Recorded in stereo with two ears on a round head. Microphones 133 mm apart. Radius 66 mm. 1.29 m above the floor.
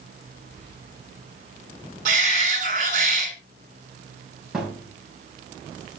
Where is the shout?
50° right (ahead or behind), 5 m.